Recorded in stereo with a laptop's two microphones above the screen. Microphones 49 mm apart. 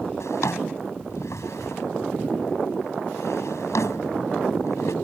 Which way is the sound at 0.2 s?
85° left.